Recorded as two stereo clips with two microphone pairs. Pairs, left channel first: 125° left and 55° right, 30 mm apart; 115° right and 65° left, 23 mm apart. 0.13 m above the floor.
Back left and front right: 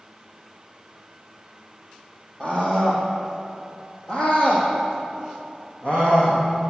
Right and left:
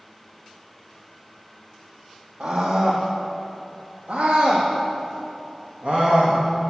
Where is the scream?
60° left, 4 m; by 6.4 s 80° left, 6 m.